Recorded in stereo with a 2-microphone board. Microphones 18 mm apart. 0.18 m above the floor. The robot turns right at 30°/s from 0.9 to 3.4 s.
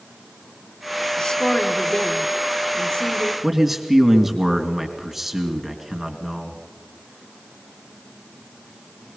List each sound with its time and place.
1.2 s a woman speaking: 55° left, 1.8 m; by 3.3 s 120° left, 1.8 m
3.4 s a man speaking: 10° right (ahead or behind), 2.5 m